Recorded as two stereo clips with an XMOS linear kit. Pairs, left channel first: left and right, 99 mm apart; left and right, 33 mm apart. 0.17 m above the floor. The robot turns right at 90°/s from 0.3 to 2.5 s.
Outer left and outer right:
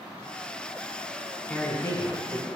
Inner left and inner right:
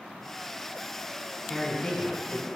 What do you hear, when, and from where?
1.5 s a man speaking: 30° left, 1.2 m; by 2.5 s 120° left, 1.2 m